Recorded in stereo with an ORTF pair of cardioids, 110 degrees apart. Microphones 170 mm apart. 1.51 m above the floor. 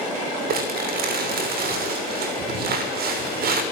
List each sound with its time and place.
0.5 s crumpling: 65° right, 6 m